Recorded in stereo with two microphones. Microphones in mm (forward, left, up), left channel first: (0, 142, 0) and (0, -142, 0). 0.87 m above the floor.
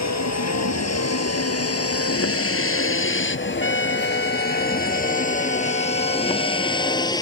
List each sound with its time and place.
0.0 s a vehicle: 70° left (ahead or behind); by 7.2 s 15° left (ahead or behind)
3.6 s a trumpet: 75° right (ahead or behind)